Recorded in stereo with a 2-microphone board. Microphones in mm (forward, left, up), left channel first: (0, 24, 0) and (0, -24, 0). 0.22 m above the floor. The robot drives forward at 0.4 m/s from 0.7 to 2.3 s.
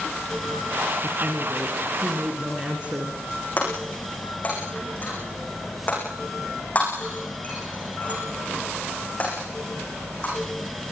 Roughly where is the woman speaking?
Right.